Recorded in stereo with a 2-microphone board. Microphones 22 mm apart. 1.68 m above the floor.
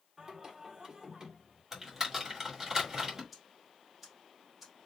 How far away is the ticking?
About 1.8 m.